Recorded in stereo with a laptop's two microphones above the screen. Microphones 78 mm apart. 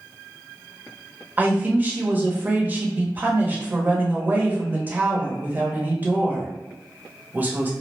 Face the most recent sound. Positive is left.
turn(degrees=-25)  # may be behind; listen again after turning